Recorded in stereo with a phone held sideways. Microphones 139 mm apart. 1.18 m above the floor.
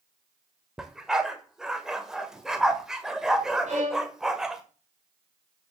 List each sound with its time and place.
0.8 s a dog barking: 5° right (ahead or behind), 1.4 m
3.7 s a violin: 60° right (ahead or behind), 3 m